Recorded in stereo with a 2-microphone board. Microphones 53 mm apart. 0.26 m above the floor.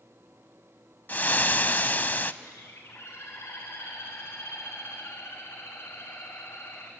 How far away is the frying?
About 0.5 m.